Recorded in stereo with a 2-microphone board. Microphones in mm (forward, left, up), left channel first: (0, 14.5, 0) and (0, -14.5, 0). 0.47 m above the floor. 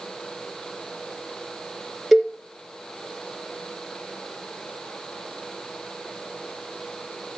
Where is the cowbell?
Centre (ahead or behind), 3 m.